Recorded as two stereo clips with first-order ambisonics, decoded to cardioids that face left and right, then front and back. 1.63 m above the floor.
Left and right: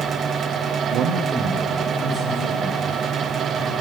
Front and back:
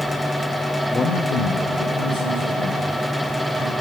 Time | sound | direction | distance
0.9 | a man speaking | 80° right | 0.5 m